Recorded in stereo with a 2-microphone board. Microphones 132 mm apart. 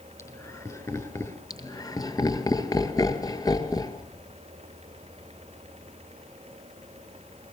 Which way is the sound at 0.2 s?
25° left (ahead or behind).